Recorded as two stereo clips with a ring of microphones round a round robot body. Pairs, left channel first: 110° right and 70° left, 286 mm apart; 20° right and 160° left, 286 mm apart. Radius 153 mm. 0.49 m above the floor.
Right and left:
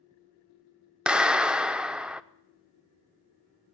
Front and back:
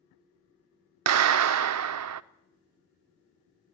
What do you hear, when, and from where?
1.1 s a clap: 155° left, 0.7 m